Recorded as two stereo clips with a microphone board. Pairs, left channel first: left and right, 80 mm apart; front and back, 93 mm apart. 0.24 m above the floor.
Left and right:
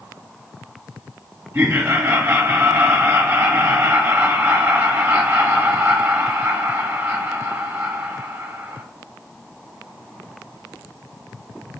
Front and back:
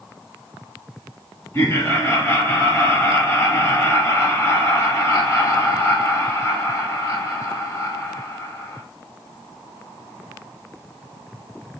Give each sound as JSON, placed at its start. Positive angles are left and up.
{"t": 1.5, "sound": "laughter", "azimuth_deg": -45, "distance_m": 1.6}